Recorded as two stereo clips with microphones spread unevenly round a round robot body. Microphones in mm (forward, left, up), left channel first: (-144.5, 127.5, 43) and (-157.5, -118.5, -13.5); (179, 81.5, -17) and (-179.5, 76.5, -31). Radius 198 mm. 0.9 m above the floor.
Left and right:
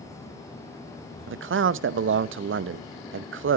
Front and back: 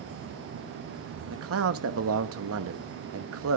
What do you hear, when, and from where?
1.3 s a man speaking: 125° right, 0.7 m